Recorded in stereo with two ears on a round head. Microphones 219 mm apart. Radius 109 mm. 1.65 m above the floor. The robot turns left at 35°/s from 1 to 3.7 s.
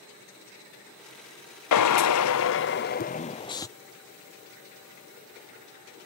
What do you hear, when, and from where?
1.7 s a drill: 80° left; by 3.7 s 15° left